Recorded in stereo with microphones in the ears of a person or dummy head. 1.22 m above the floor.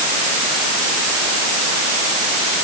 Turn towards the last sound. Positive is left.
No sound to turn to.